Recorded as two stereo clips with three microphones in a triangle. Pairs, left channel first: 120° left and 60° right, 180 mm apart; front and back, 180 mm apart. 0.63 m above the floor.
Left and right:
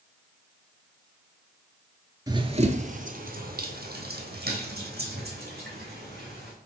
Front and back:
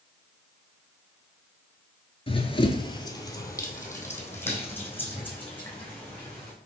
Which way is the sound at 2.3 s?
10° right.